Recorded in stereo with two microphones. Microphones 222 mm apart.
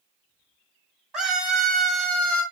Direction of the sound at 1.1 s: 5° right (ahead or behind).